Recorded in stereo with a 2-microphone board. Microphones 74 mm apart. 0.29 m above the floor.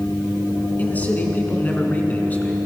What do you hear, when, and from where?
0.8 s a man speaking: 20° left (ahead or behind), 3.5 m